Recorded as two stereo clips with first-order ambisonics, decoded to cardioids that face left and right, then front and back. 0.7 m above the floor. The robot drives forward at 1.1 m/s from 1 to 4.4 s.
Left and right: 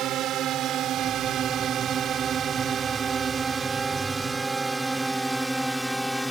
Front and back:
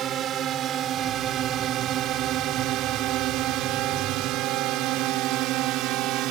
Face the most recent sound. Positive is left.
turn(degrees=175)